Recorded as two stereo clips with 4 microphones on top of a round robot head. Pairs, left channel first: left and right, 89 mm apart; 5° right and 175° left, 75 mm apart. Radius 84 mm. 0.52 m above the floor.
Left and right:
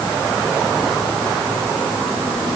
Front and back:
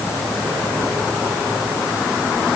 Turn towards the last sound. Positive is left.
No sound to turn to.